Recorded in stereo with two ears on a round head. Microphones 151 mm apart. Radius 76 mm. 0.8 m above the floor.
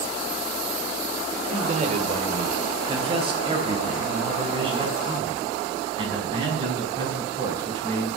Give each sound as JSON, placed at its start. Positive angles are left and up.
{"t": 1.5, "sound": "a man speaking", "side_deg": -45, "distance_m": 2.0}